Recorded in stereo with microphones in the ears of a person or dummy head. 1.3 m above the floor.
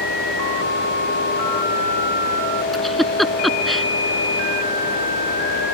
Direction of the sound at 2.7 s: 5° left (ahead or behind).